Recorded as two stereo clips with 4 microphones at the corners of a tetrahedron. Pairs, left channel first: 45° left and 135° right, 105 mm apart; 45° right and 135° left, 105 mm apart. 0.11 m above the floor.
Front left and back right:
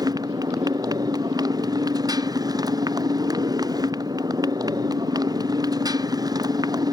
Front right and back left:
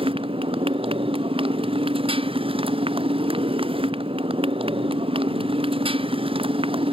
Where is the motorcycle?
170° left.